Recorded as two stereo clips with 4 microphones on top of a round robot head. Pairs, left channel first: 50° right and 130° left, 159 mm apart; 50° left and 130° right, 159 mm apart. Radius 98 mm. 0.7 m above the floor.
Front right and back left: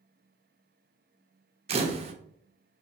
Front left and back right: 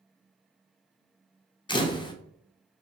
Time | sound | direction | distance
1.7 | a camera shutter | 100° left | 0.6 m